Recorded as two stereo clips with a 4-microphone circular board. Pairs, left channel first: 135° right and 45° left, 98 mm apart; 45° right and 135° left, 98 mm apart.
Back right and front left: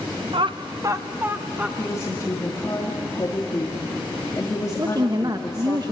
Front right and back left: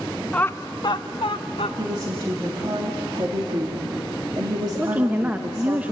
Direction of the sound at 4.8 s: 65° left.